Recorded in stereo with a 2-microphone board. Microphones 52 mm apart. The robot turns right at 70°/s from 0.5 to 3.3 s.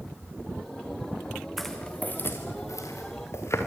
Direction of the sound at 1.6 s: Centre (ahead or behind).